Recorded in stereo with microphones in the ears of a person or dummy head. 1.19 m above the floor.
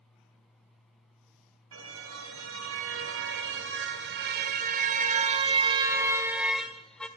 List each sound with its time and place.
1.7 s a car horn: 80° right, 3.5 m; by 7.1 s 5° left (ahead or behind), 1.9 m